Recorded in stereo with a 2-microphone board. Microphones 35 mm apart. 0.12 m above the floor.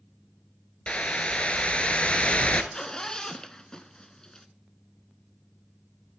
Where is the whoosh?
35° left (ahead or behind), 0.7 m.